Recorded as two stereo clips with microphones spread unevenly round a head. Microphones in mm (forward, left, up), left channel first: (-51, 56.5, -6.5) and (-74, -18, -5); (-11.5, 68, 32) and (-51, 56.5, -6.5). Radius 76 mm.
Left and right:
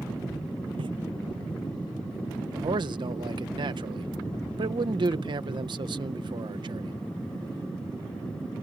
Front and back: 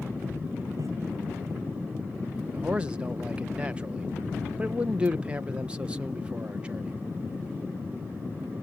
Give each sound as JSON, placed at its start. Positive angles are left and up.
{"t": 0.8, "sound": "footsteps", "azimuth_deg": -110}
{"t": 2.5, "sound": "a man speaking", "azimuth_deg": -120}